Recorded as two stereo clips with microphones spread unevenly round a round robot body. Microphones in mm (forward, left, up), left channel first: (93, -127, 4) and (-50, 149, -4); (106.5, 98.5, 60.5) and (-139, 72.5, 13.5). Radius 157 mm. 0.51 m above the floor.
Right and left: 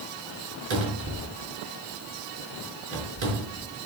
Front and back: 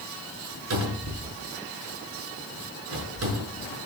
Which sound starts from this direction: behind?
A cupboard door, at 0.7 s.